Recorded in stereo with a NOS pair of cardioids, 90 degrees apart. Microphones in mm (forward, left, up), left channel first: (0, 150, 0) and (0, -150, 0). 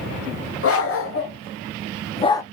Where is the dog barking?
45° left, 1.8 m; by 2.4 s 10° left, 0.6 m.